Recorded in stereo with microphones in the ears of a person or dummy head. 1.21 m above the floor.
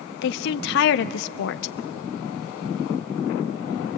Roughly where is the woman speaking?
Left.